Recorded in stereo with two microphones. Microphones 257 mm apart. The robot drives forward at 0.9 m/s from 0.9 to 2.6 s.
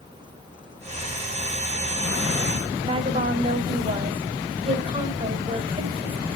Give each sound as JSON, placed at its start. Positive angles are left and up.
{"t": 2.8, "sound": "a woman speaking", "side_deg": -20, "distance_m": 1.9}